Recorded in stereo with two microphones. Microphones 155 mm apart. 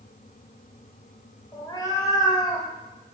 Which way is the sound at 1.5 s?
25° left (ahead or behind).